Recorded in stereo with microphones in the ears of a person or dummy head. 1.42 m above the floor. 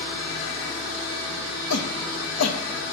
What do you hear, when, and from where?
1.7 s a shout: 90° left, 2.5 m